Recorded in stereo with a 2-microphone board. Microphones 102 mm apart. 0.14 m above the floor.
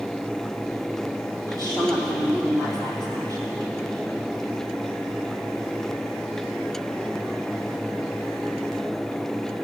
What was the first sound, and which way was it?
A woman speaking, 40° right (ahead or behind).